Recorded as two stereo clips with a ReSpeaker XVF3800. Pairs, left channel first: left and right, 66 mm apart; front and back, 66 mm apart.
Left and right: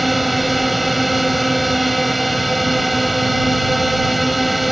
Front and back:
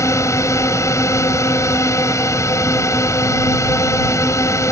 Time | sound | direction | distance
0.0 | a drone | straight ahead | ?